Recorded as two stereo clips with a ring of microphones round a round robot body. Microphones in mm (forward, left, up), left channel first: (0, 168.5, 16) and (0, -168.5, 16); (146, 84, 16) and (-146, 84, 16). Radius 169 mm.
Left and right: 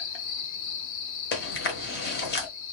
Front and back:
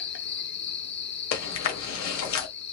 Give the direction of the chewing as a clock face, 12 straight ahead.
11 o'clock.